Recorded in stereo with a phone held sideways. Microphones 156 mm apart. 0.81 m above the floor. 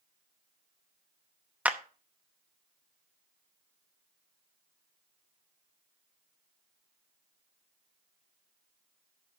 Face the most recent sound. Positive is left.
turn(degrees=-10)  # may be behind; listen again after turning